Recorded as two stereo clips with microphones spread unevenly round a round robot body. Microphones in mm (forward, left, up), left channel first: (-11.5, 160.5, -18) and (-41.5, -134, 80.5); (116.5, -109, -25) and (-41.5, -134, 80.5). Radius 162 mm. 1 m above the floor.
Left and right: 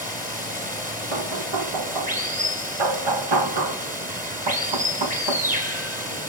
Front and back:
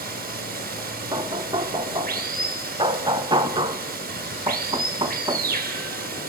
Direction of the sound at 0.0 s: 155° right.